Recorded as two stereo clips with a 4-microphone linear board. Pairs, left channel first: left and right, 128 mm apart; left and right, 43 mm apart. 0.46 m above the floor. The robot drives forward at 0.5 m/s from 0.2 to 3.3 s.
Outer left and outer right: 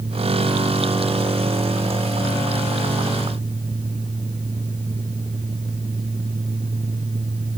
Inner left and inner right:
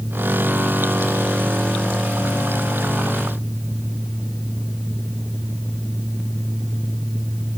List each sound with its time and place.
Only background noise.